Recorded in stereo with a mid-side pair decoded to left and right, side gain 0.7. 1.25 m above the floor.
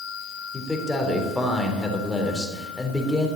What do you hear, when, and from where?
0.5 s a man speaking: 10° left, 3.5 m